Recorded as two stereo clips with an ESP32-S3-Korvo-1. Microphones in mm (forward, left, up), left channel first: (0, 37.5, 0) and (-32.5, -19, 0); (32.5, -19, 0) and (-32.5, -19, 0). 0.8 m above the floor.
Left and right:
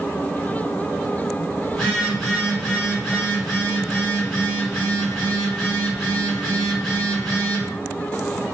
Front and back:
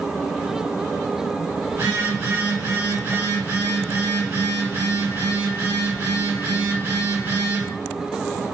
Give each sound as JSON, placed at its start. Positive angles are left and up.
{"t": 1.7, "sound": "a phone buzzing", "azimuth_deg": 150, "distance_m": 1.7}